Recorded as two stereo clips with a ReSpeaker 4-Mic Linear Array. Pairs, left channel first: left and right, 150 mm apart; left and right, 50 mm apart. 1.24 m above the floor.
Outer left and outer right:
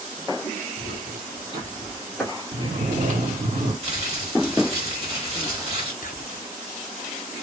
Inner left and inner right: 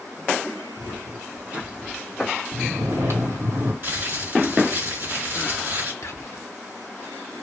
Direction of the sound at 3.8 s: 40° right (ahead or behind).